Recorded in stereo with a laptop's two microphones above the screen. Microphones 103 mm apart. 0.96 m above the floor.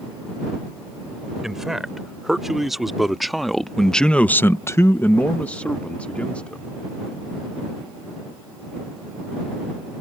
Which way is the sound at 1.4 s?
5° right (ahead or behind).